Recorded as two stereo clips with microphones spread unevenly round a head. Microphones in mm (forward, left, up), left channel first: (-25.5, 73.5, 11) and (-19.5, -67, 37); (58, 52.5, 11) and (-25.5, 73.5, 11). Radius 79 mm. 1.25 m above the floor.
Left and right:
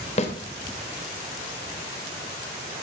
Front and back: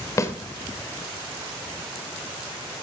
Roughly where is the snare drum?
Ahead left.